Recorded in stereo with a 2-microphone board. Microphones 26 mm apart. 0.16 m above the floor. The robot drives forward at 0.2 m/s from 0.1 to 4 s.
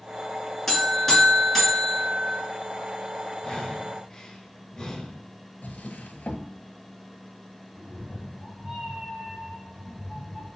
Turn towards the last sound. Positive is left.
turn(degrees=-30)  # may be behind; listen again after turning